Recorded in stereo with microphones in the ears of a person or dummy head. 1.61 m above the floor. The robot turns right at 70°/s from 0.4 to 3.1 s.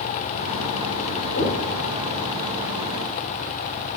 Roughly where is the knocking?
Left.